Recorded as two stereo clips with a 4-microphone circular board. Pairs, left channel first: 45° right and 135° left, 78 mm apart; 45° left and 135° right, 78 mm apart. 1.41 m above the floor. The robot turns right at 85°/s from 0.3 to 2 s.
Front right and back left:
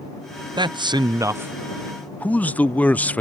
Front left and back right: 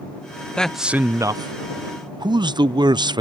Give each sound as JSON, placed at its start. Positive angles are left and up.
{"t": 0.6, "sound": "a man speaking", "azimuth_deg": 120}